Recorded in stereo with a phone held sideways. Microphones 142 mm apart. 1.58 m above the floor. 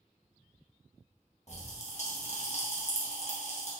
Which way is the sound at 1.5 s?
50° left (ahead or behind).